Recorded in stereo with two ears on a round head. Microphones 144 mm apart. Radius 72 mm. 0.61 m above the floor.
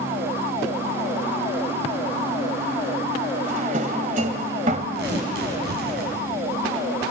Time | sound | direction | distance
3.4 | a drawer | 50° right (ahead or behind) | 1.7 m
5.0 | tearing paper | 80° right | 5.5 m